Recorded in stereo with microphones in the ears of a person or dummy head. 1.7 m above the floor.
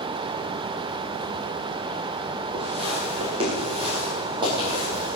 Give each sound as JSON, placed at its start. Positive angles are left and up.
{"t": 2.5, "sound": "footsteps", "side_deg": -30, "distance_m": 2.5}